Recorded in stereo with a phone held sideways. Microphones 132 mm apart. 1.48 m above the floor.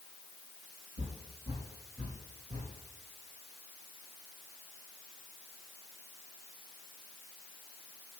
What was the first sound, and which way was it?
Footsteps, 55° right (ahead or behind).